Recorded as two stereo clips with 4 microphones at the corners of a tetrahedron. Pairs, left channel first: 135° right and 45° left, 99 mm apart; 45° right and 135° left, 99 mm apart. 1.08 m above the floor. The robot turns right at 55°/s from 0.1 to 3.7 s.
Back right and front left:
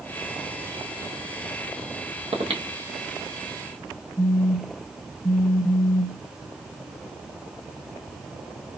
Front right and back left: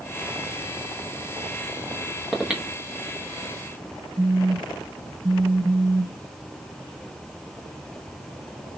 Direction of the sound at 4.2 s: Straight behind.